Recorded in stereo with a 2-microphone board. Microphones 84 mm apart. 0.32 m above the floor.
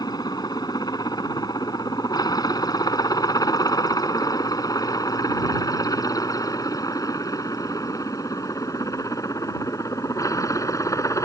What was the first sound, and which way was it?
A helicopter, 55° left (ahead or behind).